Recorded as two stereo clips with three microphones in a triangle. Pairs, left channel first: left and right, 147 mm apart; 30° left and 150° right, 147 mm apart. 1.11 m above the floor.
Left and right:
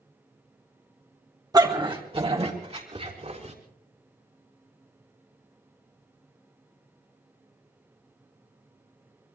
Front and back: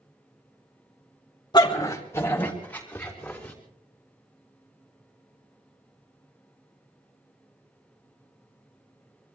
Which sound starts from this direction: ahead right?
A dog barking, at 1.5 s.